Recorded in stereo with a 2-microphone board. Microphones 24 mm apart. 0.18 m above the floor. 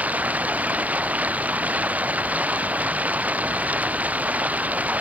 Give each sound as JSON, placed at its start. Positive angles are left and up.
{"t": 0.0, "sound": "running water", "side_deg": -85}